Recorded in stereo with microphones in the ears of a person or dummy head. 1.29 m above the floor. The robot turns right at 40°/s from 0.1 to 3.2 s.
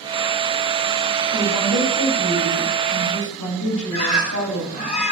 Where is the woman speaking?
Straight ahead, 8.5 m; by 4.9 s 75° left, 8.5 m.